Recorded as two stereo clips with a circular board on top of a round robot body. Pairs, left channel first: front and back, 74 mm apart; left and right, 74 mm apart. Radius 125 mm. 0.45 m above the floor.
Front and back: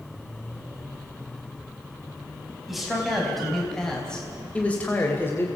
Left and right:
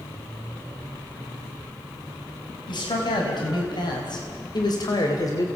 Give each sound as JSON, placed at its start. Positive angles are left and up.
{"t": 2.7, "sound": "a man speaking", "azimuth_deg": 95, "distance_m": 4.5}